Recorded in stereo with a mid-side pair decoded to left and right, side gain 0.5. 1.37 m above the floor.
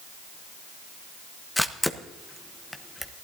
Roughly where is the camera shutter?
Ahead.